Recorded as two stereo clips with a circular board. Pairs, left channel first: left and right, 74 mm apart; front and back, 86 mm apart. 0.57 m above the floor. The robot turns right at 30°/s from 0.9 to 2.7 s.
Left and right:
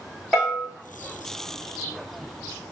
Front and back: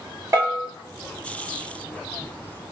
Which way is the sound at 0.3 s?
Straight behind.